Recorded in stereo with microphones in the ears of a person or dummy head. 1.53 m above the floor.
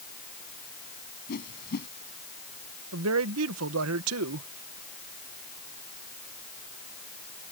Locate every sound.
1.3 s a whoosh: 50° left (ahead or behind)
2.9 s a man speaking: 80° right